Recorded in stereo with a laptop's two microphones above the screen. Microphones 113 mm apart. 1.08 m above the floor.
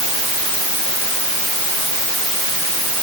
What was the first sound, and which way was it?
Only background noise.